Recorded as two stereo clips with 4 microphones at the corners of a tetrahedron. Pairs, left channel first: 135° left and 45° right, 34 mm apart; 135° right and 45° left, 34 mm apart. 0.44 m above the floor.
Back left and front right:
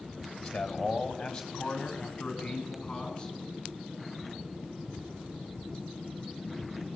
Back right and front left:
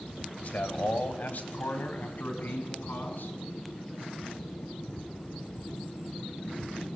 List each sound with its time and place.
0.4 s a man speaking: 145° right, 2.5 m; by 3.4 s 155° right, 4.5 m